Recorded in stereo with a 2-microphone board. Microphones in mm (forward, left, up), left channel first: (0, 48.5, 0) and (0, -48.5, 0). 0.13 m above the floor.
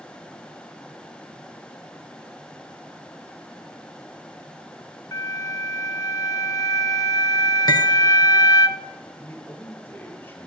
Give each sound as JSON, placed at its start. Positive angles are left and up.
{"t": 5.1, "sound": "a flute", "side_deg": 35, "distance_m": 0.6}
{"t": 7.7, "sound": "cutlery clinking", "side_deg": 45, "distance_m": 1.2}
{"t": 9.2, "sound": "a man speaking", "side_deg": 25, "distance_m": 2.5}